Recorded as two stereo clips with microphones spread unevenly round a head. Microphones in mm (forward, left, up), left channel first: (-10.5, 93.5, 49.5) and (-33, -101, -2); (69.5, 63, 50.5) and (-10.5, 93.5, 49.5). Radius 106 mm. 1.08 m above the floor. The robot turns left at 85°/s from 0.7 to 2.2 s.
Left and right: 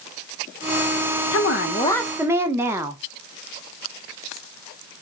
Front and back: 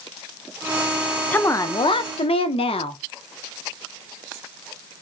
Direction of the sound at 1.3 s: 55° left.